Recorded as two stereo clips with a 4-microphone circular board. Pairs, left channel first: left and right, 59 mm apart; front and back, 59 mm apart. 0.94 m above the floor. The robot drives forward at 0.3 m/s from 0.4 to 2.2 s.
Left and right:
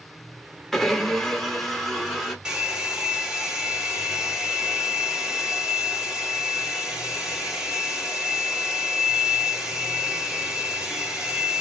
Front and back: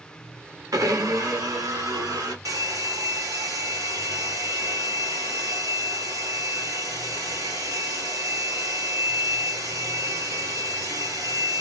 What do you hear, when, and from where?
0.7 s a blender: 175° left, 0.9 m
2.5 s a hair dryer: 165° right, 1.3 m